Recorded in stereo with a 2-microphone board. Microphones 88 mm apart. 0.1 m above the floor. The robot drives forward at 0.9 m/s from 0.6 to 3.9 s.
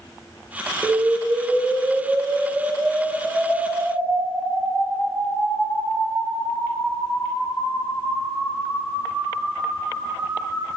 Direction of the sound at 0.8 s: 15° right (ahead or behind).